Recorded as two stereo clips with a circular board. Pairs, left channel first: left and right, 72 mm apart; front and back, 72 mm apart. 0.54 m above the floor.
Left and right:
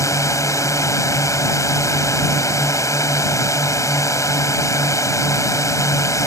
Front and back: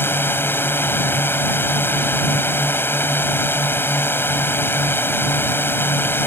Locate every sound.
0.0 s a drone: 55° left